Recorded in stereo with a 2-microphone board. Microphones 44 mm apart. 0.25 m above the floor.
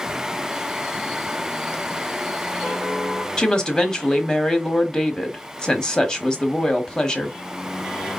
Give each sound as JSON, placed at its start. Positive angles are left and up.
{"t": 3.4, "sound": "a woman speaking", "side_deg": 20, "distance_m": 1.1}